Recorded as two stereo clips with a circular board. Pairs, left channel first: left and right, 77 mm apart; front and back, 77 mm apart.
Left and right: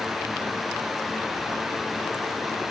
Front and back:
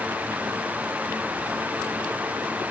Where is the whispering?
No whispering in this recording.